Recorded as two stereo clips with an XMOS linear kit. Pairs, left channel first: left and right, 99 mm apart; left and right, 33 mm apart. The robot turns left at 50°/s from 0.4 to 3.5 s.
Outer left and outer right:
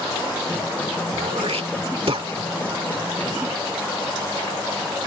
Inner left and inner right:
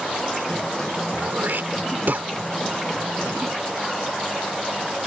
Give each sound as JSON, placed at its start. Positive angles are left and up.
{"t": 1.1, "sound": "throat clearing", "side_deg": -60}